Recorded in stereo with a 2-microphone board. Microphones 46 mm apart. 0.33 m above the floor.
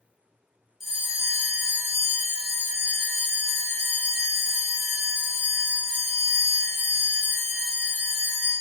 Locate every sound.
0.8 s a bell: 10° right (ahead or behind), 1.1 m